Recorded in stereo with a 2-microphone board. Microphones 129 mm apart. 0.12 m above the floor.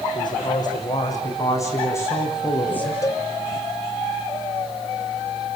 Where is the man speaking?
35° left (ahead or behind), 8.5 m; by 2.9 s 15° left (ahead or behind), 8.5 m.